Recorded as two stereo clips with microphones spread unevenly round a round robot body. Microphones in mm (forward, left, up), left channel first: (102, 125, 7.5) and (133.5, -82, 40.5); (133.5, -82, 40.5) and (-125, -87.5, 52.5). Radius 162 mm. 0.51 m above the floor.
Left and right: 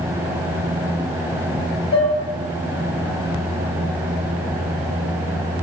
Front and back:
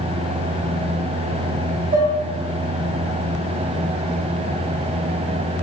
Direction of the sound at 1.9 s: 125° left.